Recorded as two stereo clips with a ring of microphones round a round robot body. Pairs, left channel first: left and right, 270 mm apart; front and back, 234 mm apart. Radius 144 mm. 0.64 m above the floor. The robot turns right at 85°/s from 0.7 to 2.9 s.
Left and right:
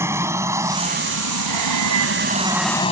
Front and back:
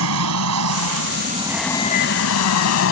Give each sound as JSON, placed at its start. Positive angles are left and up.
{"t": 0.0, "sound": "an aircraft", "azimuth_deg": -170}